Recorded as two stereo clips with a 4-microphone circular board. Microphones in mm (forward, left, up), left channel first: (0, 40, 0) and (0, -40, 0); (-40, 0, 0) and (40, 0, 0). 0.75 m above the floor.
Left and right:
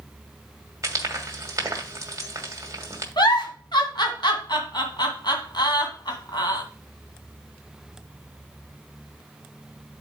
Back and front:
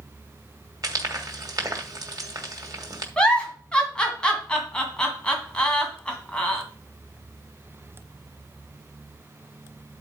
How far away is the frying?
About 1.8 m.